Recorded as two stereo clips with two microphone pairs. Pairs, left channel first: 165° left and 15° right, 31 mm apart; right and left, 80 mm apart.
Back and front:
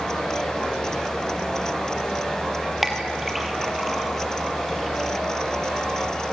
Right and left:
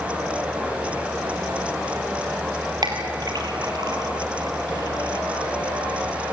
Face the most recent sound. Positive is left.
turn(degrees=70)